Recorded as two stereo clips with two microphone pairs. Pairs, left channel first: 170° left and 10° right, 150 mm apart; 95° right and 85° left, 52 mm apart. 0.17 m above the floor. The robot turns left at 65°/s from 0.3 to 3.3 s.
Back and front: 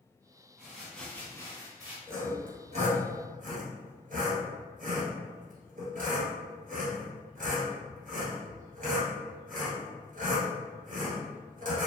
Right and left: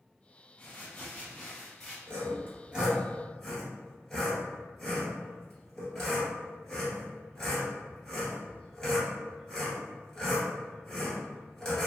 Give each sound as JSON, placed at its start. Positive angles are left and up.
{"t": 0.6, "sound": "crumpling", "azimuth_deg": -95, "distance_m": 1.5}
{"t": 2.1, "sound": "sawing", "azimuth_deg": 65, "distance_m": 1.4}